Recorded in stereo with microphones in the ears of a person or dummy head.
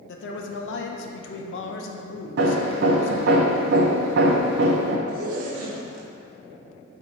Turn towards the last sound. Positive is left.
turn(degrees=-50)  # may be behind; listen again after turning